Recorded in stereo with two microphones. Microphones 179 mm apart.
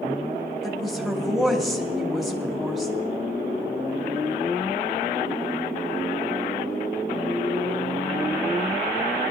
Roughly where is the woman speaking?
Centre.